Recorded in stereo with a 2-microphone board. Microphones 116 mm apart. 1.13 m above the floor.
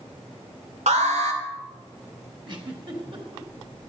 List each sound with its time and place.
0.9 s an alarm: 80° right, 2 m
2.5 s a giggle: 45° right (ahead or behind), 3 m